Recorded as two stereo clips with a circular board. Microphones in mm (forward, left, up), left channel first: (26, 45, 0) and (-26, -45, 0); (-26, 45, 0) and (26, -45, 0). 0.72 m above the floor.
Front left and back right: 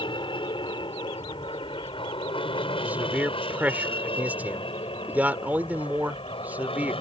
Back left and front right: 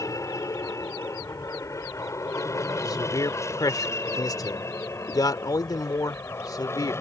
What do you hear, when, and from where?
0.0 s an aircraft: 70° left; by 7.0 s 60° left
2.8 s a man speaking: 170° left